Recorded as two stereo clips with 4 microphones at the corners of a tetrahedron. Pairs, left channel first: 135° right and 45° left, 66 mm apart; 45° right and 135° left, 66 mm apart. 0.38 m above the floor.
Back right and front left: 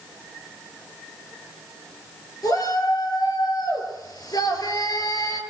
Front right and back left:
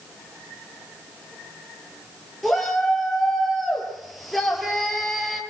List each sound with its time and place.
2.4 s a shout: 130° right, 6.5 m